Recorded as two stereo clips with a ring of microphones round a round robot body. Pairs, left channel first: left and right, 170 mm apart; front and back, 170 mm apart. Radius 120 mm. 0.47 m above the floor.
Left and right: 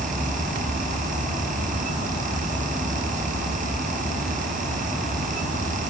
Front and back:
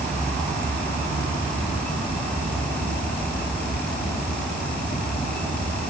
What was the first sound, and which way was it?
Only background noise.